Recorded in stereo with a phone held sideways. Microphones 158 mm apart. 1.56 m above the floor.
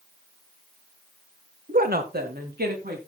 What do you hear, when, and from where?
1.7 s a woman speaking: 65° right (ahead or behind), 1.4 m; by 3.0 s 80° right, 3.5 m